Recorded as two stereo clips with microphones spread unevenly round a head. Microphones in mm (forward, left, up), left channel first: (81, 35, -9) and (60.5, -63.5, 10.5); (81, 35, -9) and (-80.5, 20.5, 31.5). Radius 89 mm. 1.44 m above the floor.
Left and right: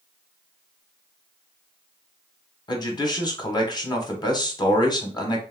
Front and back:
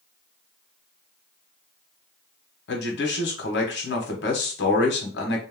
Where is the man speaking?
25° left, 1.0 m.